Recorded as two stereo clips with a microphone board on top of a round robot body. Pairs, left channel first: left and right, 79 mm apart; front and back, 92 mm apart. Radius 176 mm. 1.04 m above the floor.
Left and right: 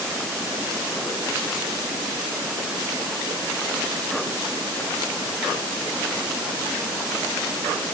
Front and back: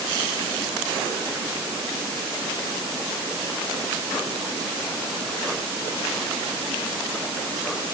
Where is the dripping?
I don't hear dripping.